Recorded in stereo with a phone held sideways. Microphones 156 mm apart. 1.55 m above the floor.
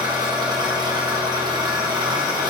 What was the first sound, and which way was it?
An engine running, 25° right (ahead or behind).